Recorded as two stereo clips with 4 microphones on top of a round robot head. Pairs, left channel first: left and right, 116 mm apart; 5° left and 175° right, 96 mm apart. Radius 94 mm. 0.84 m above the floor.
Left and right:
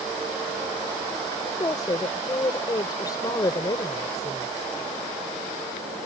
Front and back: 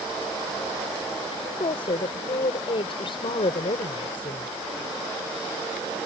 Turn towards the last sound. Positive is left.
turn(degrees=35)